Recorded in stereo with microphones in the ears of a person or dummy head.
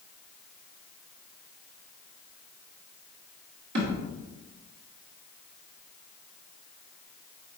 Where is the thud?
50° right (ahead or behind), 1.4 m.